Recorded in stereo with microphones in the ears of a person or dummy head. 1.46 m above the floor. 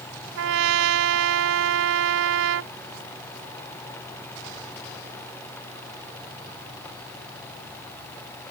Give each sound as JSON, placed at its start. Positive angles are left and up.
{"t": 0.4, "sound": "a trumpet", "side_deg": -85}